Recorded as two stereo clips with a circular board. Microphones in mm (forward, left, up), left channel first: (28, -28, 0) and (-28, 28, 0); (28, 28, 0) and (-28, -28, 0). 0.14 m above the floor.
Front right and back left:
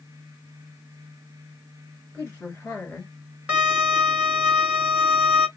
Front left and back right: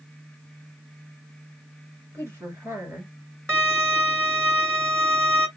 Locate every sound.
2.1 s a woman speaking: 100° right, 1.9 m
3.5 s a violin: 165° right, 1.6 m